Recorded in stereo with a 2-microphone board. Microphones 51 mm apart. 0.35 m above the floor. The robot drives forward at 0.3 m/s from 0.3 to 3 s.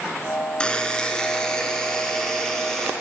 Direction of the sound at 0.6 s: 20° left (ahead or behind).